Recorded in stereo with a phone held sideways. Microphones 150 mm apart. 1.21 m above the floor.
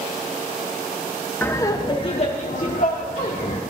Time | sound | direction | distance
1.4 | laughter | 15° left (ahead or behind) | 0.7 m